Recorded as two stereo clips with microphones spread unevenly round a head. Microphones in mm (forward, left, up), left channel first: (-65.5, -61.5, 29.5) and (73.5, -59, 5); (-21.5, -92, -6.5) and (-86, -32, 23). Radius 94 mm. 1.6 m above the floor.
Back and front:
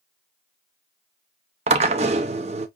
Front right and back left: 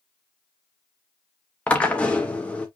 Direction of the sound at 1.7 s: 55° left.